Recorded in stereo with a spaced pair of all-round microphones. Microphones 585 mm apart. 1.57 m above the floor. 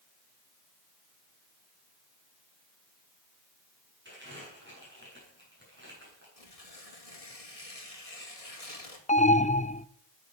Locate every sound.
4.0 s crumpling: 20° right (ahead or behind), 8.5 m
6.4 s tearing paper: 75° left (ahead or behind), 2.5 m
9.1 s an alarm: 15° left (ahead or behind), 0.5 m